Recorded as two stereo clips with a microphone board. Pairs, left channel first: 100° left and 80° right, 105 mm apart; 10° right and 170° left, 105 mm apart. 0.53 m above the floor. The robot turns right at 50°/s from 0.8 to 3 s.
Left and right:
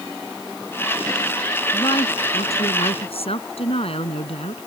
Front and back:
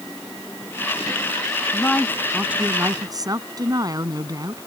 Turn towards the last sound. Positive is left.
turn(degrees=120)